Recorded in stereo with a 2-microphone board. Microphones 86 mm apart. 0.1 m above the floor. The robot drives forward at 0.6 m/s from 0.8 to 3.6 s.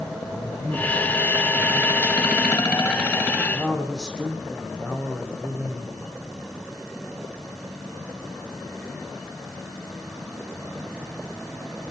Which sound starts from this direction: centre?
A man speaking, at 0.2 s.